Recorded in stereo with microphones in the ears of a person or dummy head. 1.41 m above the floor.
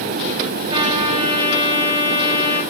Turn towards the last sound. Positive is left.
turn(degrees=-30)  # may be behind; listen again after turning